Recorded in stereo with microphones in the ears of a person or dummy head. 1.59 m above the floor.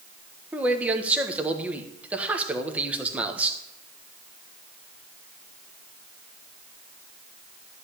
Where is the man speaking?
10° right (ahead or behind), 1.5 m.